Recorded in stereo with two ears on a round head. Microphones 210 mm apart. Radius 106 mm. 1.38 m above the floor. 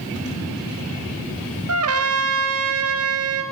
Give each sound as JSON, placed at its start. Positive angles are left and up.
{"t": 1.7, "sound": "a trumpet", "side_deg": -65, "distance_m": 2.0}